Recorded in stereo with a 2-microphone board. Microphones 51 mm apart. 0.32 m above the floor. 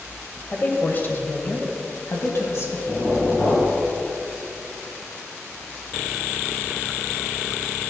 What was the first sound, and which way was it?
A woman speaking, 30° left (ahead or behind).